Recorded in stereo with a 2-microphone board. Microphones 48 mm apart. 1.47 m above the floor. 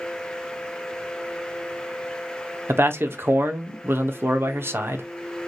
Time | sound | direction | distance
2.7 | a man speaking | 55° right (ahead or behind) | 0.7 m